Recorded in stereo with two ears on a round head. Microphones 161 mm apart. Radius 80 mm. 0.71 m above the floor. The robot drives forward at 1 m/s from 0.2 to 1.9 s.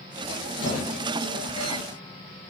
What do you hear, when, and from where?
0.6 s a squeak: 75° left (ahead or behind), 2.0 m; by 1.8 s 50° left (ahead or behind), 2.5 m